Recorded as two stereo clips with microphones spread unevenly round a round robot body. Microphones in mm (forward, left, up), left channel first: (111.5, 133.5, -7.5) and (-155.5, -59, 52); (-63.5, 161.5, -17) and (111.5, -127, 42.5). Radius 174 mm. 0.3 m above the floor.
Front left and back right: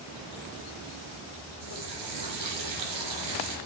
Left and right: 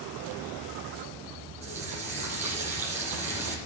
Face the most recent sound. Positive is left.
turn(degrees=-145)